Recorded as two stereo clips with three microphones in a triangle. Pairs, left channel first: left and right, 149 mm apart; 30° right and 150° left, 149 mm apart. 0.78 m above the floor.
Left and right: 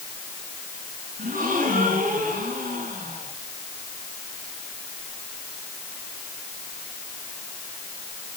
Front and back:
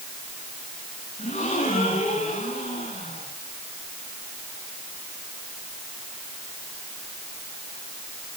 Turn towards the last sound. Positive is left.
turn(degrees=-60)